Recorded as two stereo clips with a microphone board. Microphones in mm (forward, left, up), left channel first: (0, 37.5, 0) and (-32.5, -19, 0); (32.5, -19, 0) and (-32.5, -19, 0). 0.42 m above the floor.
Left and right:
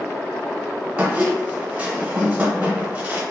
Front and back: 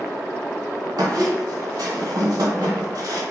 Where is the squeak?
175° left, 0.8 m.